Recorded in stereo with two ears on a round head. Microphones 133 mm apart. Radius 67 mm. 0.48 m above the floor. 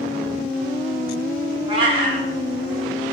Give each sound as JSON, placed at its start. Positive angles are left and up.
{"t": 1.7, "sound": "a cat meowing", "side_deg": -35, "distance_m": 0.5}